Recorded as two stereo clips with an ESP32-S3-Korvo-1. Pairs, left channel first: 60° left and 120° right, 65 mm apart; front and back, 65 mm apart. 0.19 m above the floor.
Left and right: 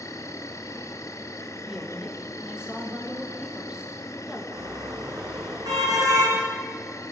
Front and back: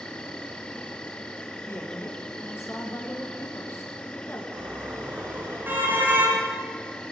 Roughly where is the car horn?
Behind right.